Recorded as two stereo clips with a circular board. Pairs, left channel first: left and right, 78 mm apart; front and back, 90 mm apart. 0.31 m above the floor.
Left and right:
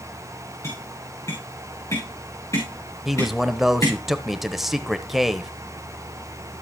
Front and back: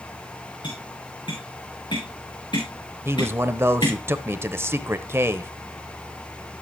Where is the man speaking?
175° right, 0.9 m.